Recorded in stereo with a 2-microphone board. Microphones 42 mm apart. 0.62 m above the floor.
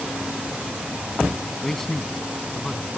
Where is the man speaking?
5° left (ahead or behind).